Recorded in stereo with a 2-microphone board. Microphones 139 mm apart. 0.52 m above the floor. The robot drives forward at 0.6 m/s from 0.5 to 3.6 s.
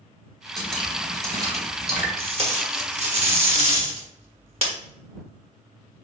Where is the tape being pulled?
45° right (ahead or behind), 1.1 m.